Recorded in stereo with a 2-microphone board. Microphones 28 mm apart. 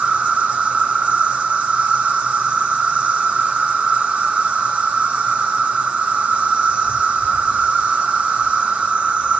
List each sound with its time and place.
0.0 s an insect: 45° right (ahead or behind), 3 m